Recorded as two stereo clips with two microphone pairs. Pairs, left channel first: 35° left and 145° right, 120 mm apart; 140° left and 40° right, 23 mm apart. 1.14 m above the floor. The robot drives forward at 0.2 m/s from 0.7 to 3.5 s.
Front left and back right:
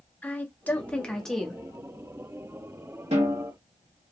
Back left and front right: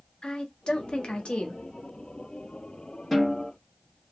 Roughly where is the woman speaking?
Left.